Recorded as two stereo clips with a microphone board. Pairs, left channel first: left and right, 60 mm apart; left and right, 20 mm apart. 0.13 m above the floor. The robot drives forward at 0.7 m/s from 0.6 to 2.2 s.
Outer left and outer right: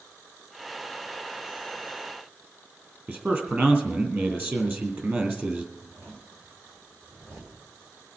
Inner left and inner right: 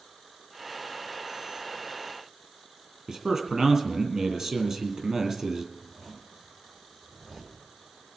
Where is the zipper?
70° right (ahead or behind), 6.5 m.